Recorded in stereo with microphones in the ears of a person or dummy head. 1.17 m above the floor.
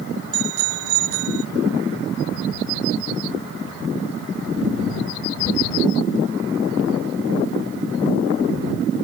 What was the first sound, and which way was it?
A bicycle bell, 75° right (ahead or behind).